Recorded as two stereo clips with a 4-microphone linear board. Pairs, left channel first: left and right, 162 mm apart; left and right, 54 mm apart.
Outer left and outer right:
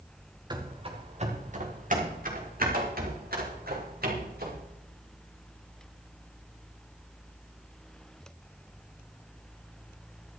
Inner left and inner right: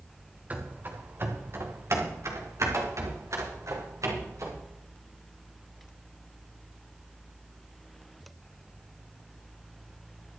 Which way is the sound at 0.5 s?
30° right (ahead or behind).